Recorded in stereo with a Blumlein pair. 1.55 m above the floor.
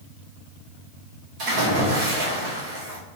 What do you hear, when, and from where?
1.4 s a splash: 40° right, 1.7 m